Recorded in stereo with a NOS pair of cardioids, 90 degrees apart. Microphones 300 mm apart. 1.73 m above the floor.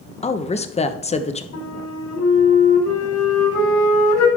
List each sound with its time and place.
0.2 s a woman speaking: 20° left, 1.1 m
1.5 s a flute: 65° left, 4.5 m